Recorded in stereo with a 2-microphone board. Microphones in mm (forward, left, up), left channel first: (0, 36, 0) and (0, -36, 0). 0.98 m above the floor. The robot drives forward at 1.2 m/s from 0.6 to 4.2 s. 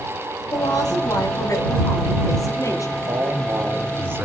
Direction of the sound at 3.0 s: 50° right (ahead or behind).